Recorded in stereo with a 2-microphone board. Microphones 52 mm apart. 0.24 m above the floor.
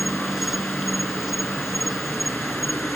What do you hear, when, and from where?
0.0 s an insect: 5° right (ahead or behind)